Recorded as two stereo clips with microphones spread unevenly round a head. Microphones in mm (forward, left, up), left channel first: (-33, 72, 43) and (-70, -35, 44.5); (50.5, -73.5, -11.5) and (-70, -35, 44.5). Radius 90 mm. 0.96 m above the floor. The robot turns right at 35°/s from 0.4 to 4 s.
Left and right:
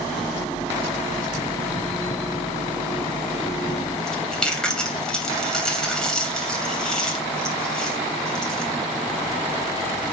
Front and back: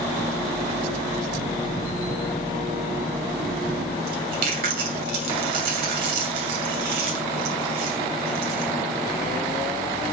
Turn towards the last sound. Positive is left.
turn(degrees=155)